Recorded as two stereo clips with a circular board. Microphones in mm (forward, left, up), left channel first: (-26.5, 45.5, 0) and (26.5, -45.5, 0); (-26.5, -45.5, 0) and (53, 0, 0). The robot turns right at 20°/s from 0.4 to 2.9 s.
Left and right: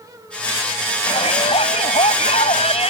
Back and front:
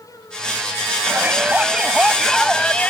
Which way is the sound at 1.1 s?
95° left.